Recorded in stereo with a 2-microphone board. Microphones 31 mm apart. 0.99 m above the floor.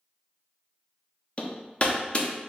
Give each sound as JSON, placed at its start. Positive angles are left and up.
{"t": 1.4, "sound": "hammering", "side_deg": 40, "distance_m": 0.5}